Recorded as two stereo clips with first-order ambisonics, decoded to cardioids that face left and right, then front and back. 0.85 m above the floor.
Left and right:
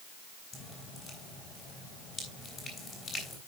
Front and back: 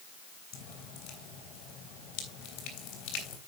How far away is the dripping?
About 3.5 m.